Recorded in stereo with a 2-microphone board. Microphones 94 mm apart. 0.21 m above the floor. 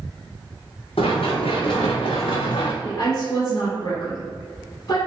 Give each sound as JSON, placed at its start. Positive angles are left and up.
{"t": 1.0, "sound": "running footsteps", "side_deg": 85, "distance_m": 1.7}
{"t": 2.8, "sound": "a woman speaking", "side_deg": 40, "distance_m": 1.6}